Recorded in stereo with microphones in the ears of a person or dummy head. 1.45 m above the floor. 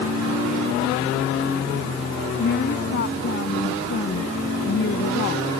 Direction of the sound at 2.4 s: 60° left (ahead or behind).